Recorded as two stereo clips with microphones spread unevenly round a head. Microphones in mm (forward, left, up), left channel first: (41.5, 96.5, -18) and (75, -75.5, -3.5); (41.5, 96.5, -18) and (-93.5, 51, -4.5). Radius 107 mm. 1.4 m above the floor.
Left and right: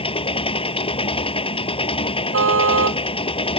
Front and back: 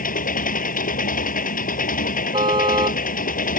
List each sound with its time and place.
0.0 s an engine running: 40° left
2.3 s a car horn: 90° right